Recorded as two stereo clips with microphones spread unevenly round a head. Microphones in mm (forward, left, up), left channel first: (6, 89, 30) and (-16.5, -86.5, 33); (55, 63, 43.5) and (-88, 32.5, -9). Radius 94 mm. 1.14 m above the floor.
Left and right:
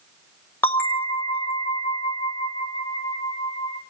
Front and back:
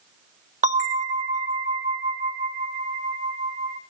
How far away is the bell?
About 2.5 m.